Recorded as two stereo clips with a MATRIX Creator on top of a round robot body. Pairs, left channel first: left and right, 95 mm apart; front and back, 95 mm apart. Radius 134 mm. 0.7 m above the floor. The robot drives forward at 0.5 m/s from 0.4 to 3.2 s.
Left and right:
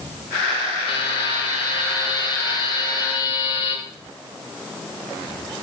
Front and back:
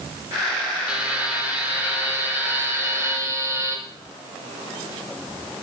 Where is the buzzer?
105° left, 3.5 m; by 3.8 s 120° left, 4 m.